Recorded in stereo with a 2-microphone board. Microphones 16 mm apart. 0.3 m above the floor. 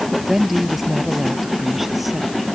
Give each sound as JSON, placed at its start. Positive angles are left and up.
{"t": 0.1, "sound": "a woman speaking", "side_deg": -10}